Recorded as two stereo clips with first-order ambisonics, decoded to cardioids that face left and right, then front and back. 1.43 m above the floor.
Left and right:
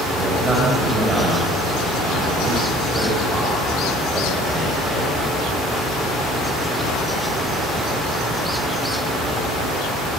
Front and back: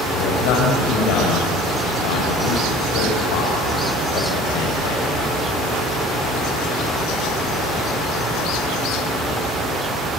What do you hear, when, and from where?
0.1 s a man speaking: 10° right, 6.5 m